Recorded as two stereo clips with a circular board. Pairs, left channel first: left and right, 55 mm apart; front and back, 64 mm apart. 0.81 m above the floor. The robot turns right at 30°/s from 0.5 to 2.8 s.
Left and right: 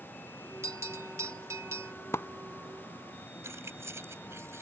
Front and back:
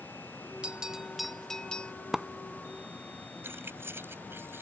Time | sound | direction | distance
0.6 | a bell | 110° right | ?
2.1 | a splash | 95° left | ?
3.4 | keys jangling | 125° right | ?